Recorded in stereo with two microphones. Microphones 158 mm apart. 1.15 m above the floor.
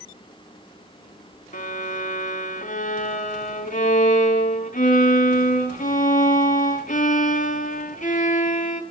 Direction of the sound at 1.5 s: 55° left (ahead or behind).